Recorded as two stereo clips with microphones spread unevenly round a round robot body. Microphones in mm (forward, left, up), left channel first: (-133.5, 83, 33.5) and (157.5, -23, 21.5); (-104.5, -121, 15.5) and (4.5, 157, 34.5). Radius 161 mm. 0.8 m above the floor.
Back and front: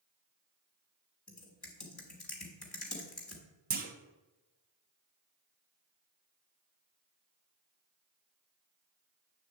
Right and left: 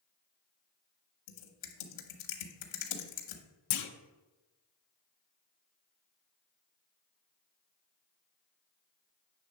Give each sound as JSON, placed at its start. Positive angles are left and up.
{"t": 1.3, "sound": "typing on a keyboard", "azimuth_deg": -115, "distance_m": 1.3}
{"t": 3.7, "sound": "a clunk", "azimuth_deg": -85, "distance_m": 0.7}